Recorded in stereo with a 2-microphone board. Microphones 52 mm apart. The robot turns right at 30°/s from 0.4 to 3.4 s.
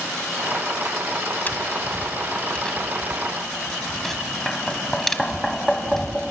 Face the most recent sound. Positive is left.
turn(degrees=5)  # may be behind; listen again after turning